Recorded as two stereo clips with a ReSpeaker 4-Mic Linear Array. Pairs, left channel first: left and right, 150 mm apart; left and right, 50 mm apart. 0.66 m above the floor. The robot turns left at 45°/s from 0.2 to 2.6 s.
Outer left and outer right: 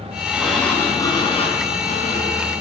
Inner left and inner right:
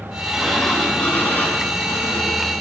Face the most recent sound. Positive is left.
turn(degrees=85)